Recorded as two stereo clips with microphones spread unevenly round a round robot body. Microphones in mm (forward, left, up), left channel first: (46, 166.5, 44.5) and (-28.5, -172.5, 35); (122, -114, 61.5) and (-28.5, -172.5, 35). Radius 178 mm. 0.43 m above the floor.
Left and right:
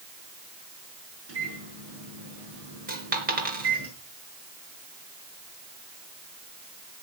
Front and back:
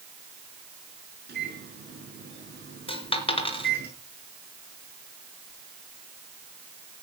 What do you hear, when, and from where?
1.3 s a microwave: 155° right, 6.5 m
2.9 s a dropped coin: 35° right, 3.5 m